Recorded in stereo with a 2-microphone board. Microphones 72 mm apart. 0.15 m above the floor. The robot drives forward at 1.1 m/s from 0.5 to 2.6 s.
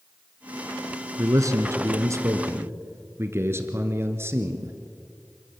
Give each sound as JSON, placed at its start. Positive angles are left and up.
{"t": 1.2, "sound": "a man speaking", "side_deg": -45, "distance_m": 1.5}